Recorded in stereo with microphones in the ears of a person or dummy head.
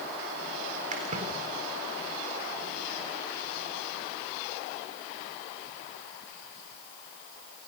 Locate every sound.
0.9 s a splash: 45° right (ahead or behind), 3.5 m